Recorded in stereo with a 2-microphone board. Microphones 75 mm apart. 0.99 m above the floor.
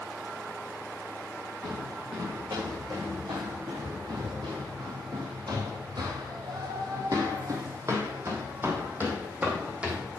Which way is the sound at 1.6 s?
55° right (ahead or behind).